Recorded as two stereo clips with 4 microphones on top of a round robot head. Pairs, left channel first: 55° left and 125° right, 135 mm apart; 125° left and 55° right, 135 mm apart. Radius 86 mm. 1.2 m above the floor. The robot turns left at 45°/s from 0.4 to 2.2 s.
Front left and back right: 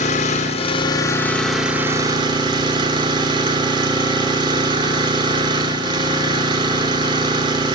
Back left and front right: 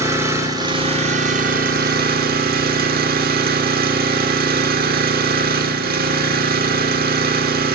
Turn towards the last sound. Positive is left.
turn(degrees=-65)